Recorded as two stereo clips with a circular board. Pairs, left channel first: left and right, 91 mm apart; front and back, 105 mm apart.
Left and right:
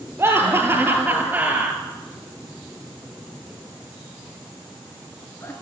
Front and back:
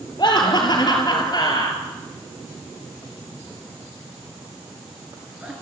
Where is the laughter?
35° right, 3 m; by 5.5 s 110° left, 1.9 m.